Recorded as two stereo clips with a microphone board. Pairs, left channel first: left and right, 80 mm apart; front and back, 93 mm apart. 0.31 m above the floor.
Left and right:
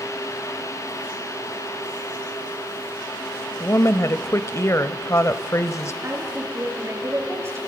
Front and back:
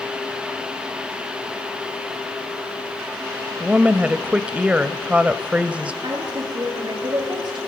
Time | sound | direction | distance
3.6 | a woman speaking | 110° left | 1.1 m
6.0 | a woman speaking | 145° right | 6 m